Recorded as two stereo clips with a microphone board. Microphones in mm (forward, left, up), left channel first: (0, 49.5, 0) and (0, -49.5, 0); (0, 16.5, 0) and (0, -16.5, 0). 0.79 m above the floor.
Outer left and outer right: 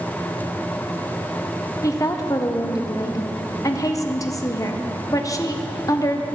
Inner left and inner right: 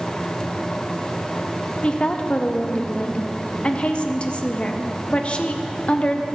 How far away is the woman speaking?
About 0.6 m.